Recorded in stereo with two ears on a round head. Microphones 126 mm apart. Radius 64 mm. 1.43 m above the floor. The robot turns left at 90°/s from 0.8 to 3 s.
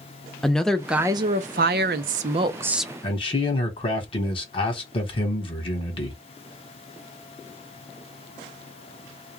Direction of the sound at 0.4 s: 5° left.